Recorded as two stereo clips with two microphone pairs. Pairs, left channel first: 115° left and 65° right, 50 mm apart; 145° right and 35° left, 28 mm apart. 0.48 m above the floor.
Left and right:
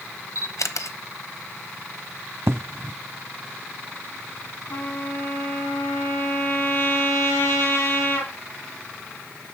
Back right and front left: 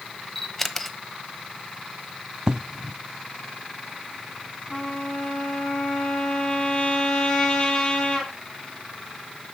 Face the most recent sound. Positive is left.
turn(degrees=150)